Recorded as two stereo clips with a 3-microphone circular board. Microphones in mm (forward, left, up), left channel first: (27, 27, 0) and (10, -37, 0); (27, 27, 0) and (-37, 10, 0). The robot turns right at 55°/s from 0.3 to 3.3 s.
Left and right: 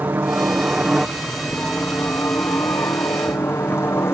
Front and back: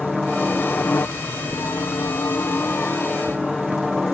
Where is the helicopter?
65° right; by 4.1 s 100° left.